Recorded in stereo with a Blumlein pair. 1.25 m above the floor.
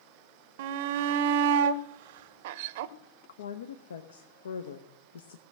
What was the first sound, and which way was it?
A shout, 50° right.